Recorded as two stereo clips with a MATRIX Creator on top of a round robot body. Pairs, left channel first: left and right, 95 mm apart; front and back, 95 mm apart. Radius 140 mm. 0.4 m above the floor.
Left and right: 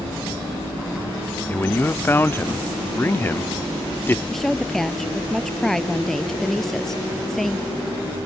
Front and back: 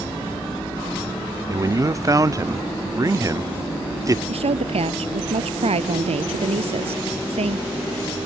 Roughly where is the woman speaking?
Behind.